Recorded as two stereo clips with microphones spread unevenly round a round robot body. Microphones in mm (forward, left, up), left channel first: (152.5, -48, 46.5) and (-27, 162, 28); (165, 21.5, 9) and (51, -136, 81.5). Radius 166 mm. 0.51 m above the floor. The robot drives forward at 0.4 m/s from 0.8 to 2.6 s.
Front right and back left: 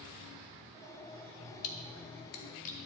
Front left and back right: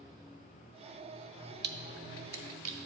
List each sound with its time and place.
1.6 s a splash: 80° right, 0.7 m; by 2.8 s 115° right, 0.8 m